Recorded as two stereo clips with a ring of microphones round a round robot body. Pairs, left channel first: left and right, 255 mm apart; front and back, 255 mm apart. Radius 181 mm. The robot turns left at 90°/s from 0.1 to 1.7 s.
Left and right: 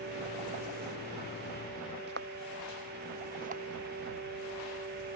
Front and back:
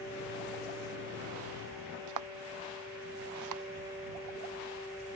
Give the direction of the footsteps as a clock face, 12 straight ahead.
5 o'clock.